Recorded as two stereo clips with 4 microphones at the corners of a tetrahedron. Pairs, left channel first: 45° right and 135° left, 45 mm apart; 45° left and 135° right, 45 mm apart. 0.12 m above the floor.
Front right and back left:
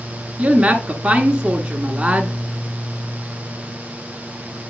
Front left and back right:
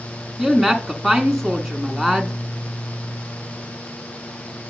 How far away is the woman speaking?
About 1.1 m.